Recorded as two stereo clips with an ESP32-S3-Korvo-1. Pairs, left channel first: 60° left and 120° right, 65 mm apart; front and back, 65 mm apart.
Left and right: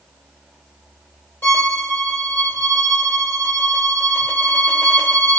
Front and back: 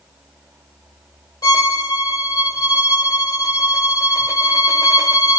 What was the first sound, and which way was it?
A violin, straight ahead.